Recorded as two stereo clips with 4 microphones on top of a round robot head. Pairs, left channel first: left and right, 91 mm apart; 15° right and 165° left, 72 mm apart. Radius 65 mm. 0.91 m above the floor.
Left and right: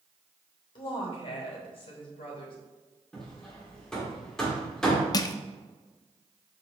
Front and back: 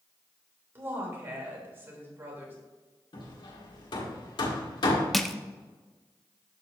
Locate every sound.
0.8 s a woman speaking: 110° left, 3 m
3.1 s hammering: 5° left, 1.5 m
5.1 s crushing: 75° left, 0.6 m